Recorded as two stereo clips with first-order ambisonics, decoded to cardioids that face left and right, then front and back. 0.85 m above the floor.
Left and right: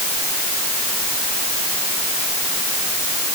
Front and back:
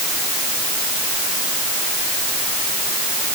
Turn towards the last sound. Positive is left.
No sound to turn to.